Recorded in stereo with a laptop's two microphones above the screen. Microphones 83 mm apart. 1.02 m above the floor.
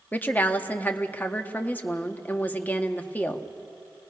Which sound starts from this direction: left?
A woman speaking, at 0.1 s.